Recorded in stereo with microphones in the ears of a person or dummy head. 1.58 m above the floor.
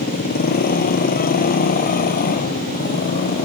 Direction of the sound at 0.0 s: 45° left (ahead or behind).